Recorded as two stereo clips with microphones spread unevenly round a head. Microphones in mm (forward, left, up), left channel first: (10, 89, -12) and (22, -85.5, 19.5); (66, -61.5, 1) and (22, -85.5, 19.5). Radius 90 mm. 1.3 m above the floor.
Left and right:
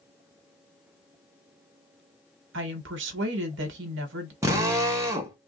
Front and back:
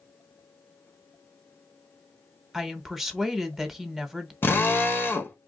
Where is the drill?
20° right, 1.0 m.